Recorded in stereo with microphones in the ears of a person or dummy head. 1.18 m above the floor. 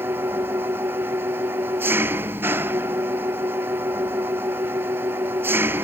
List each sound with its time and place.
0.0 s an engine running: 10° right (ahead or behind)